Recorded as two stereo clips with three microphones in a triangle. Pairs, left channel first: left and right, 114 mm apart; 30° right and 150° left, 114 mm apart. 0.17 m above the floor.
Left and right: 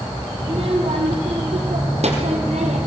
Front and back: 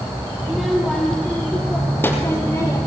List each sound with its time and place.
0.4 s a child speaking: 120° right, 3.5 m; by 2.8 s 90° right, 3.5 m